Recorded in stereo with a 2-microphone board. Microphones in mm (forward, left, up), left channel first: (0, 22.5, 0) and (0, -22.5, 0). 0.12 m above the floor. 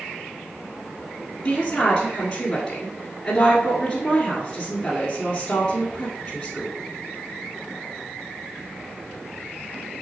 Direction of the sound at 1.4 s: 15° left (ahead or behind).